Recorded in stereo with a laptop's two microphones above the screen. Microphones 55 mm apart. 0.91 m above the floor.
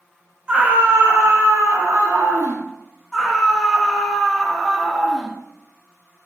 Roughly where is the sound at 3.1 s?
Centre.